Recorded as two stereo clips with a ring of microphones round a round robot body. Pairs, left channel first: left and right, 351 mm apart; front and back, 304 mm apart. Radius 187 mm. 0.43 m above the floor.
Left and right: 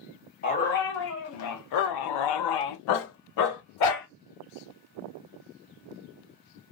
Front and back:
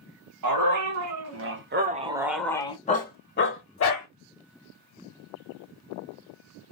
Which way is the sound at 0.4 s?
155° left.